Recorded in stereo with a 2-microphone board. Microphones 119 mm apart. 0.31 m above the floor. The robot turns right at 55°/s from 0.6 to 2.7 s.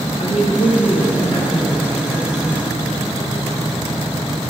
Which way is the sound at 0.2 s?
80° left.